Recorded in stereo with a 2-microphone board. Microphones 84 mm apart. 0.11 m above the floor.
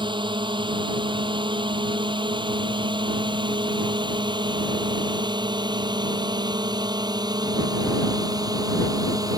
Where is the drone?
65° right (ahead or behind); by 9.4 s 45° right (ahead or behind).